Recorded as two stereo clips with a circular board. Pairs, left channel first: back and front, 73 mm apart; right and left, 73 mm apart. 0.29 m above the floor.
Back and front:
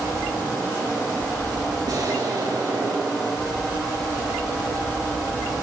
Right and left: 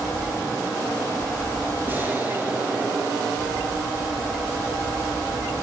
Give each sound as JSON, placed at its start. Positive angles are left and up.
{"t": 1.9, "sound": "an explosion", "azimuth_deg": 25, "distance_m": 4.0}